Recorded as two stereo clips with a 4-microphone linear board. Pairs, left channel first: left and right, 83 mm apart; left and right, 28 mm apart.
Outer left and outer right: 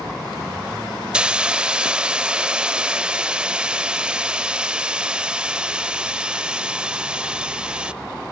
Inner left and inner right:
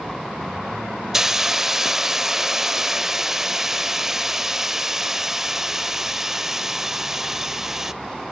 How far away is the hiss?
About 0.6 m.